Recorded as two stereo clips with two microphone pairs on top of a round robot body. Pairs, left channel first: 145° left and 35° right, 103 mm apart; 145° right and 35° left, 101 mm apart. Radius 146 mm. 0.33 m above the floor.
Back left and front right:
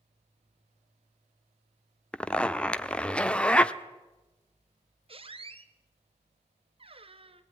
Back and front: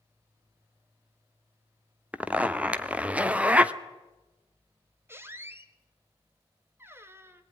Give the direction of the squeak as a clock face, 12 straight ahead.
1 o'clock.